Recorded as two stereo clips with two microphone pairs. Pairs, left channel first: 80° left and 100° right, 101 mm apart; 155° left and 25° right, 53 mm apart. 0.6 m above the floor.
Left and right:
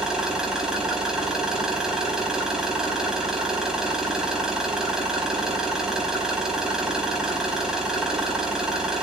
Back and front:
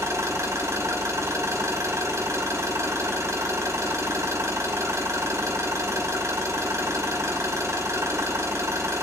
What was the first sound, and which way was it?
An engine running, 20° right.